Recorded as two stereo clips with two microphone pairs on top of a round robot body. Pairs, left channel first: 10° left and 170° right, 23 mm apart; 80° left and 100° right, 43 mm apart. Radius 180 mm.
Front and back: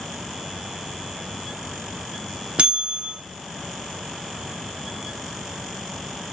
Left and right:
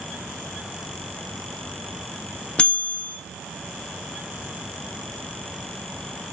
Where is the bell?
145° left, 0.9 m.